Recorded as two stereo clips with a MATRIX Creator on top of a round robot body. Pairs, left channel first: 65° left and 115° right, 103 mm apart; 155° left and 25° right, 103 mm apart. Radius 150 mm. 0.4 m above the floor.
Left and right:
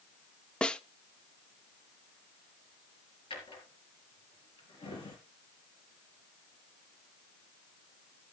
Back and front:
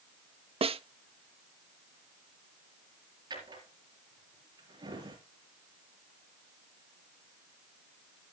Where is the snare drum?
15° right, 0.7 m.